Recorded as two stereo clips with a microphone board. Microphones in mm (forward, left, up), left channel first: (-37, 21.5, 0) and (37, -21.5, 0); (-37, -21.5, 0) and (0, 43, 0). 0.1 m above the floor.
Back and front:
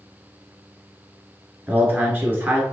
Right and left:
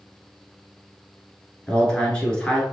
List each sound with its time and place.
1.7 s a man speaking: 60° right, 1.3 m